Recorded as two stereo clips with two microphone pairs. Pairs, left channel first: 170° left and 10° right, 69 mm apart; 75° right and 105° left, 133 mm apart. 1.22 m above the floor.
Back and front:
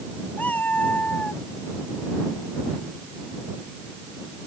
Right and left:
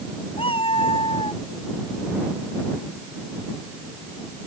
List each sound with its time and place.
0.4 s a cat meowing: 125° right; by 1.4 s 120° right